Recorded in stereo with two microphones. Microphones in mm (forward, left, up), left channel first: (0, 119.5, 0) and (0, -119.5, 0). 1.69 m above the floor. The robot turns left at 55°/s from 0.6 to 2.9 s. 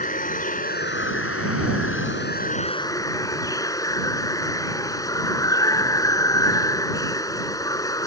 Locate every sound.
0.0 s running water: 140° left; by 8.1 s 15° left